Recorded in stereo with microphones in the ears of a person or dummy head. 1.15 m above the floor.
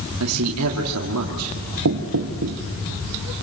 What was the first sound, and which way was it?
A man speaking, 85° right.